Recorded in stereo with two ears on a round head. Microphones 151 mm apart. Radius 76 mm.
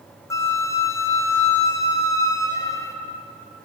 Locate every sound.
0.3 s a flute: 20° left (ahead or behind), 0.6 m